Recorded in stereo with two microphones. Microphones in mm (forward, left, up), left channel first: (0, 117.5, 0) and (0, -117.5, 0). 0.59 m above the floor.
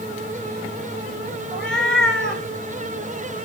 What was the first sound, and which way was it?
A cat meowing, centre (ahead or behind).